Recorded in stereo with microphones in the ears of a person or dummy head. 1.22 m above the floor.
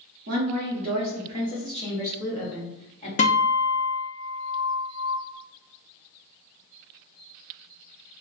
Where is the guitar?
40° left (ahead or behind), 0.8 m.